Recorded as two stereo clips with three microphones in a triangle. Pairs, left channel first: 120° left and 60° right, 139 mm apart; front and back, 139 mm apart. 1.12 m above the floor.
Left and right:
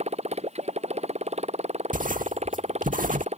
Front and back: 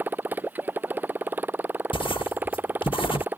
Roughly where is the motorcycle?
Right.